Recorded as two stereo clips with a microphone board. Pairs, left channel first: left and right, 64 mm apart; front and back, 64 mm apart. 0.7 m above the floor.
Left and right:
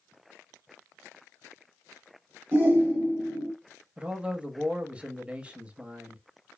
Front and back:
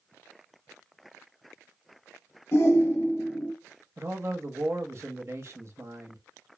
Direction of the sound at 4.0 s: 155° right.